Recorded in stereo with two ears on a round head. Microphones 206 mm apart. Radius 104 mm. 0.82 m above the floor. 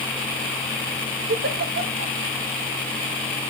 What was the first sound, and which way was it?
A giggle, 45° right (ahead or behind).